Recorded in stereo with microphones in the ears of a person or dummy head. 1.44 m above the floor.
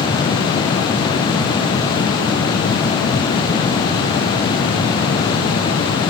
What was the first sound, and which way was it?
Only background noise.